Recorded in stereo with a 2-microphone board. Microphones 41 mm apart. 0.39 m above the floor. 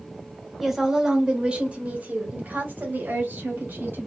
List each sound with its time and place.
0.6 s a woman speaking: 5° right (ahead or behind), 1.1 m; by 4.1 s 60° right (ahead or behind), 2.5 m